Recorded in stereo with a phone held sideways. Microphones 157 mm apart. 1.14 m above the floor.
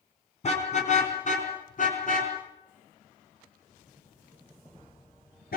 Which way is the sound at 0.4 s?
45° left (ahead or behind).